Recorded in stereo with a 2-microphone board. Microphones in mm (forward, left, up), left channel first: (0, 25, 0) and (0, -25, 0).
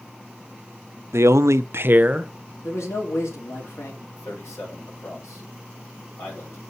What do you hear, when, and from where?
1.1 s a man speaking: 60° right (ahead or behind), 0.6 m; by 2.3 s 20° right (ahead or behind), 0.8 m
2.6 s a man speaking: 70° left (ahead or behind), 3 m
4.2 s a man speaking: 70° left (ahead or behind), 6.5 m